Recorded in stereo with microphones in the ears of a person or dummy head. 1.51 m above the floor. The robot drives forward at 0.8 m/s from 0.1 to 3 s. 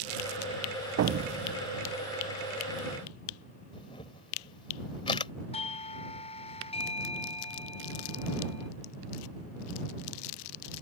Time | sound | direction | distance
1.0 | an explosion | 70° right (ahead or behind) | ?
3.7 | a camera shutter | 30° left (ahead or behind) | ?
5.5 | a doorbell | 30° left (ahead or behind) | ?